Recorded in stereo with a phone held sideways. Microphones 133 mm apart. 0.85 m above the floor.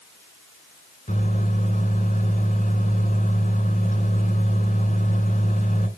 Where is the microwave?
80° left, 3 m.